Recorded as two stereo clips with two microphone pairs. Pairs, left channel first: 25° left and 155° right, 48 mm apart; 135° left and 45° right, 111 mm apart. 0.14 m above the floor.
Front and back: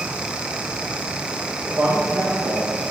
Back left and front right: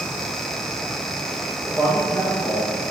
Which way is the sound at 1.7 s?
100° right.